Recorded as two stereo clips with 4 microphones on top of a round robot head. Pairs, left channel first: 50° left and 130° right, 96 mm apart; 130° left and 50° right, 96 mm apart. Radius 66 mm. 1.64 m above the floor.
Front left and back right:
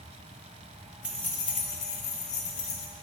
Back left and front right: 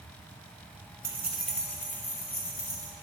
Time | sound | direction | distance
1.0 | keys jangling | 65° right | 0.5 m